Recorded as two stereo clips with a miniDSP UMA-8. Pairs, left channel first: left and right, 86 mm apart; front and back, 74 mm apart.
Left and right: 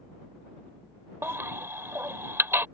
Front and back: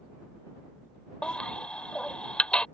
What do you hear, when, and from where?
1.2 s a baby crying: 65° right